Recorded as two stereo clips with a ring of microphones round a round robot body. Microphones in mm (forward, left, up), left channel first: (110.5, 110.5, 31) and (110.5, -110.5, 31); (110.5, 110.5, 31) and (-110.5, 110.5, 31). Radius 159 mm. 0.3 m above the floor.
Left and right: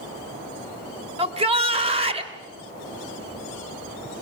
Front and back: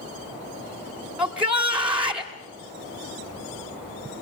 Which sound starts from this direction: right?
A shout, at 1.2 s.